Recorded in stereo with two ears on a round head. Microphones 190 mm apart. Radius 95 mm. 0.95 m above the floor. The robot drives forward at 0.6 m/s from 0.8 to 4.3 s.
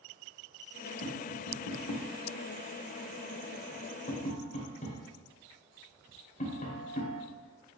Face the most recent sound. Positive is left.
turn(degrees=40)  # may be behind; listen again after turning